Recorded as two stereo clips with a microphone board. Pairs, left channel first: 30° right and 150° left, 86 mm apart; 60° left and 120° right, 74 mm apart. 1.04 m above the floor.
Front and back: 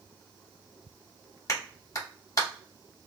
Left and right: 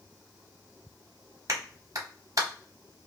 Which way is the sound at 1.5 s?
80° right.